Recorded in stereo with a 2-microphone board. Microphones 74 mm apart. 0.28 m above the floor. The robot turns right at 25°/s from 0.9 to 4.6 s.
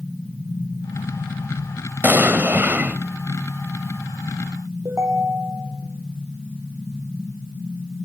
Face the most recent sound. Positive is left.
turn(degrees=-50)  # may be behind; listen again after turning